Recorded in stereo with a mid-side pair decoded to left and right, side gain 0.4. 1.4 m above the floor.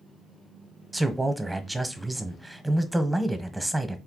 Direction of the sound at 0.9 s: 10° right.